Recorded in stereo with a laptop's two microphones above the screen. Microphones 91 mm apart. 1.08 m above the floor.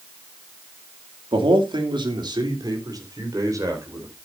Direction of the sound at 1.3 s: 75° right (ahead or behind).